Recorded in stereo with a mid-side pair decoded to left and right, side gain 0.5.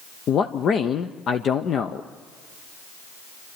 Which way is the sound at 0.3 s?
50° left.